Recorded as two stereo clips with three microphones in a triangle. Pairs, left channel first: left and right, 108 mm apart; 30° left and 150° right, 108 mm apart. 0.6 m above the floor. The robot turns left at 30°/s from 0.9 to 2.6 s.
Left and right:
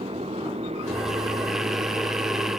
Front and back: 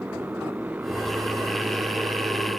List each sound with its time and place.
0.0 s a motorcycle: 75° right; by 2.6 s 125° right